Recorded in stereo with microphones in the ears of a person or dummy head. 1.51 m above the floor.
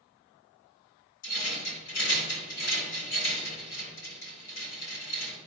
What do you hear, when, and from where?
1.2 s a rattle: 55° left (ahead or behind), 2.5 m